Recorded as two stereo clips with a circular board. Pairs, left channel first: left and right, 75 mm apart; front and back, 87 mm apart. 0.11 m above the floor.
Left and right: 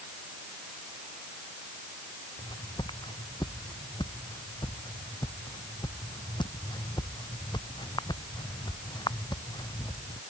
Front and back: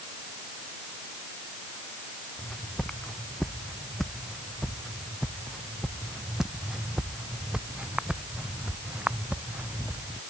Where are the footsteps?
80° left; by 10.2 s 110° left.